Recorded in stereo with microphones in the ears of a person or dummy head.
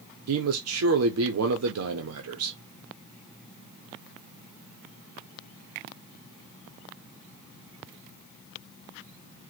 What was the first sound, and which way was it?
A man speaking, 85° right.